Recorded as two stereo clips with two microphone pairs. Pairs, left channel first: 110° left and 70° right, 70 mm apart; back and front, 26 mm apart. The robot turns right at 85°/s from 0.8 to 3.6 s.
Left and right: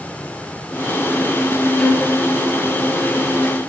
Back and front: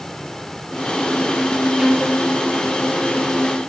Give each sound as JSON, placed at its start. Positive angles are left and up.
{"t": 1.8, "sound": "a violin", "azimuth_deg": 45, "distance_m": 2.0}